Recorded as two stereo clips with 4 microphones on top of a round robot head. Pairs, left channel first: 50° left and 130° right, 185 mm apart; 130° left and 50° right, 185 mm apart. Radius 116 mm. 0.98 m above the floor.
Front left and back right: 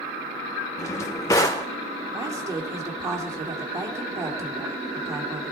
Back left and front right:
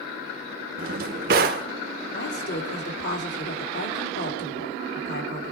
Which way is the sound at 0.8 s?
20° right.